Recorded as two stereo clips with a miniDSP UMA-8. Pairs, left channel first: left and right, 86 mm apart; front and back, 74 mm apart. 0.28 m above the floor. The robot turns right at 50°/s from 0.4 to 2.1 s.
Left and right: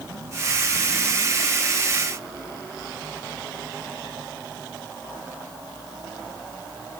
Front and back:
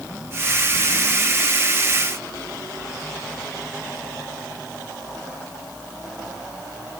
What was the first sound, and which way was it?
Only background noise.